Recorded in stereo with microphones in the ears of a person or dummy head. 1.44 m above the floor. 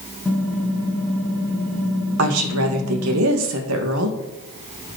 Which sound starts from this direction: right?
A woman speaking, at 2.2 s.